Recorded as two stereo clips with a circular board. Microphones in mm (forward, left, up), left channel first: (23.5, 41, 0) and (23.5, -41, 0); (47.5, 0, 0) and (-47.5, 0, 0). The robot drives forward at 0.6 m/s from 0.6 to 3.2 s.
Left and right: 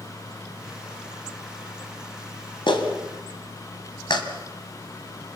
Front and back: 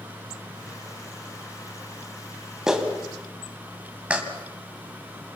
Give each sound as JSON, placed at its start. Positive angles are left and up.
{"t": 2.7, "sound": "a clap", "azimuth_deg": 95, "distance_m": 2.5}